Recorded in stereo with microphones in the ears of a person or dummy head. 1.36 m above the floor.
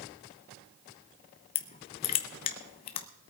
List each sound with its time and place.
1.6 s crushing: 30° left (ahead or behind), 0.8 m